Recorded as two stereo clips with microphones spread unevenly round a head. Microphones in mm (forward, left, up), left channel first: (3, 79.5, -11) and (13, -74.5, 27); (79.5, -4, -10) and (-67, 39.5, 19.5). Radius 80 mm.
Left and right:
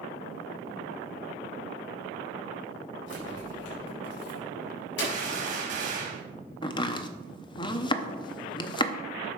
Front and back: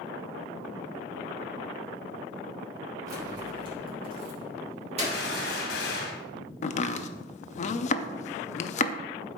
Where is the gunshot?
50° right, 1.7 m.